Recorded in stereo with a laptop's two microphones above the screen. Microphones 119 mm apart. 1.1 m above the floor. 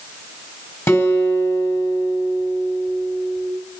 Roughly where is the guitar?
Left.